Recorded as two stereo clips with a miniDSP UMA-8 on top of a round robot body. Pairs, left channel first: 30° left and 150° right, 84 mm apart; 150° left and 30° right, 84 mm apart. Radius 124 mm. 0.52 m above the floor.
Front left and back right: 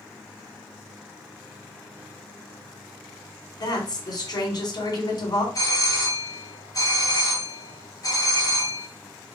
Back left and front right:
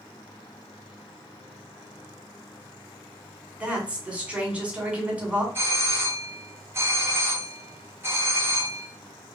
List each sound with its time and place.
3.6 s a woman speaking: 45° left, 1.8 m
5.5 s a doorbell: 20° left, 1.5 m